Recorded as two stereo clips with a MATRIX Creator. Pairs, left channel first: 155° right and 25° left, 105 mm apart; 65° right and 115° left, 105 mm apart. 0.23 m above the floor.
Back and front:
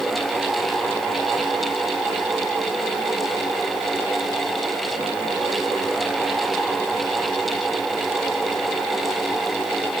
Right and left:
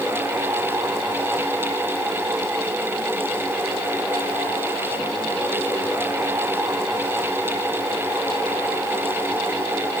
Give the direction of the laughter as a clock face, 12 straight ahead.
I don't hear laughter.